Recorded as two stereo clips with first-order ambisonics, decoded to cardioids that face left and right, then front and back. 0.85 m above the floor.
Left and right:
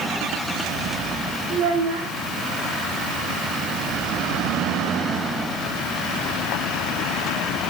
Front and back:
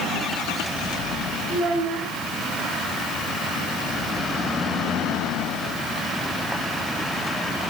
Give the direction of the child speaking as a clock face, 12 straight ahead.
4 o'clock.